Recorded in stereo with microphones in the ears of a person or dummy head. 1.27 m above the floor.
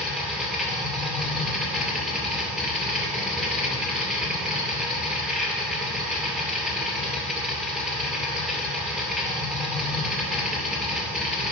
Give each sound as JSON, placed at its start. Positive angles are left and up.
{"t": 0.0, "sound": "a machine running", "side_deg": -5, "distance_m": 2.5}